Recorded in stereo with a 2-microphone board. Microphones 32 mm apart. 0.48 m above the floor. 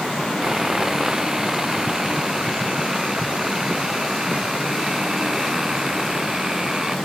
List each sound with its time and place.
0.4 s sawing: 20° right (ahead or behind)